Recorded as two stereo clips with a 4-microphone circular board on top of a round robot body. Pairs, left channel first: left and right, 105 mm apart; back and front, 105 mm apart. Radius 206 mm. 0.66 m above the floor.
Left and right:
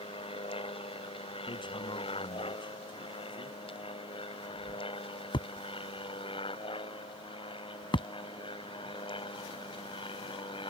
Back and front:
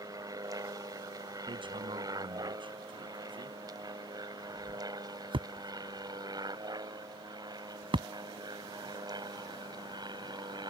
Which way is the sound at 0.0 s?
55° left.